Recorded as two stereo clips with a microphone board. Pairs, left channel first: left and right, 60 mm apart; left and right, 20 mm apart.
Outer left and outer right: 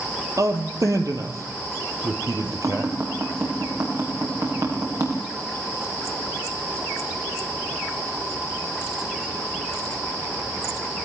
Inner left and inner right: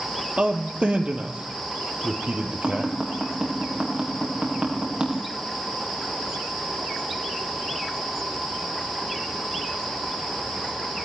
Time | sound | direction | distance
0.4 | a man speaking | 65° right (ahead or behind) | 3 m
2.6 | tapping | 65° right (ahead or behind) | 8.5 m